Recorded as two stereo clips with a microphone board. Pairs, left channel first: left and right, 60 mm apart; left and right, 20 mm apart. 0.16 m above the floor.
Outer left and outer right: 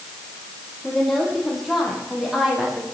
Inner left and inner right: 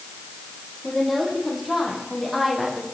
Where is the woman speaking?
5° left (ahead or behind), 4.5 m; by 2.8 s 10° right (ahead or behind), 5 m.